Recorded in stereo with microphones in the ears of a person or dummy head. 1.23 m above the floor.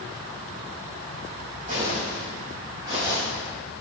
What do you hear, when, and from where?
1.7 s footsteps: 40° right (ahead or behind), 3.5 m; by 3.2 s 30° right (ahead or behind), 4.5 m